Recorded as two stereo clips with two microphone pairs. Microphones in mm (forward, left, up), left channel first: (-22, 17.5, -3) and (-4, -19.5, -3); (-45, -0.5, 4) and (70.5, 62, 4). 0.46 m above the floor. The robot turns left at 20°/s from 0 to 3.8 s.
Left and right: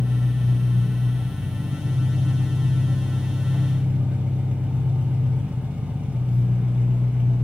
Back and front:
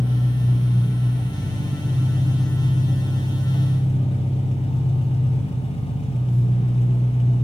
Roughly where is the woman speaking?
No woman speaking in this recording.